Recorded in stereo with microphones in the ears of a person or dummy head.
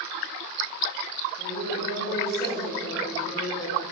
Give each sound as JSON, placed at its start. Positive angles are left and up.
{"t": 1.4, "sound": "a woman speaking", "side_deg": 25, "distance_m": 3.5}